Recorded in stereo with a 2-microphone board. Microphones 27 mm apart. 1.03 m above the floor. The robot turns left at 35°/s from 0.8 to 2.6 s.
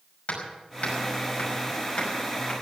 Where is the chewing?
I don't hear chewing.